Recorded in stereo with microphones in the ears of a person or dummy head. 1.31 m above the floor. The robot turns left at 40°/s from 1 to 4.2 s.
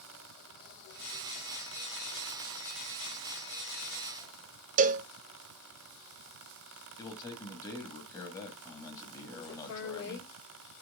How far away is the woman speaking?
About 5.5 m.